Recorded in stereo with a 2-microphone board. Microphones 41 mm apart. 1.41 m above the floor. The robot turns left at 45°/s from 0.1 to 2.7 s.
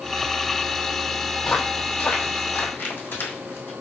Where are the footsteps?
15° left (ahead or behind), 1.8 m; by 3.7 s 60° left (ahead or behind), 3 m.